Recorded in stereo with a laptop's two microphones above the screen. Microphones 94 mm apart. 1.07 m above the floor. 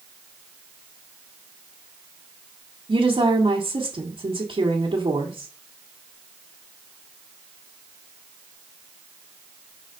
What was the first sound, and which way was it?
A woman speaking, 70° right (ahead or behind).